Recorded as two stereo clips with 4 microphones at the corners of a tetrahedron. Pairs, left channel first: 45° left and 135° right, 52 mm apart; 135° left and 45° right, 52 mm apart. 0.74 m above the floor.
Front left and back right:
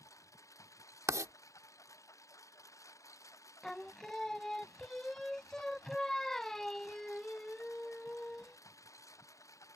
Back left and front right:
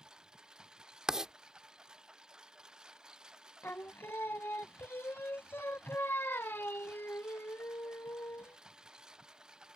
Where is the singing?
125° left.